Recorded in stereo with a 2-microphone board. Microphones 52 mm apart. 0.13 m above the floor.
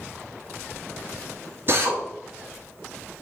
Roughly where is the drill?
Right.